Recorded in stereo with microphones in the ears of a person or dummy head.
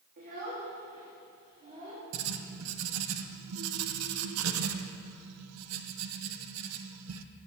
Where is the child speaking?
45° right (ahead or behind), 1.5 m; by 2.0 s 30° right (ahead or behind), 2.5 m.